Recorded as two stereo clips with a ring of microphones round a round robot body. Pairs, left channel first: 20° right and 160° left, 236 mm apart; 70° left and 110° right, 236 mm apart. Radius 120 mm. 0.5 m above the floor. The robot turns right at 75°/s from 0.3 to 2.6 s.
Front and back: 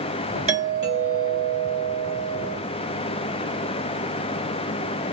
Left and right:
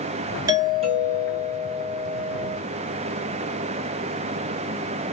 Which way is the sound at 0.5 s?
170° right.